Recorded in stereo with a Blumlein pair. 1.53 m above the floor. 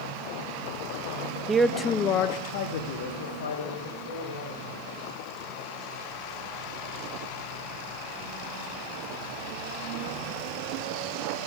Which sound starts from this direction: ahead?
A man speaking, at 1.5 s.